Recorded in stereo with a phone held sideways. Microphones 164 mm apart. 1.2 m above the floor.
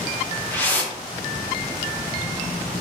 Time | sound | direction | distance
0.5 | a whoosh | 10° left (ahead or behind) | 0.6 m